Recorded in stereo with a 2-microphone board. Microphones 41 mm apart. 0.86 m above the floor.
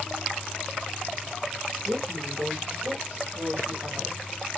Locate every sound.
1.8 s a woman speaking: 70° right (ahead or behind), 2.5 m